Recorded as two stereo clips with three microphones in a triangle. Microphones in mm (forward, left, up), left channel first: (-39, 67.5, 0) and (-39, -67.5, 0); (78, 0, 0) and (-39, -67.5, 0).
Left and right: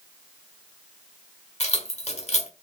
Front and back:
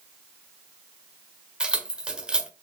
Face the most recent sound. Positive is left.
turn(degrees=125)